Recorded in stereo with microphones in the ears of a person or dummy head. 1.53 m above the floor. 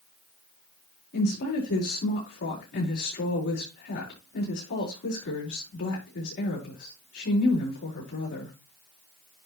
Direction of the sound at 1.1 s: 65° left (ahead or behind).